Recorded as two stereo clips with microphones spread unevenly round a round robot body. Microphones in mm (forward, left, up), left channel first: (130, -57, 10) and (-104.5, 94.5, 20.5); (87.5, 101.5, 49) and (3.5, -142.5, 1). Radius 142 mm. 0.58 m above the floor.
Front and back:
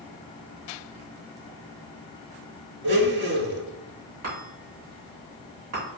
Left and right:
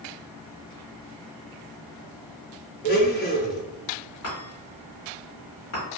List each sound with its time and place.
2.8 s a blender: 105° left, 0.6 m
4.2 s a chime: 115° left, 2.0 m